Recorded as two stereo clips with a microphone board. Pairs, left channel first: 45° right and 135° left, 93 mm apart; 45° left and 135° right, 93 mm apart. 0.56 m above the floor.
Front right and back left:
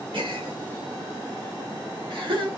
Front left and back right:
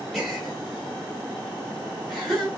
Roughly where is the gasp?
Behind left.